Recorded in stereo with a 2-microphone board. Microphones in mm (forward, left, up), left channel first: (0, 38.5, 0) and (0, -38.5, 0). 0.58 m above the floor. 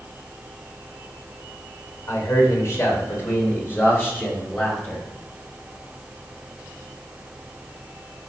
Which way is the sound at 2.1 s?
45° left (ahead or behind).